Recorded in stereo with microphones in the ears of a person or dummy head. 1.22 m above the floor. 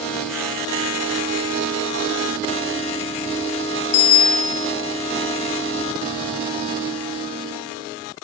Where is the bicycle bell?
70° left (ahead or behind), 2 m.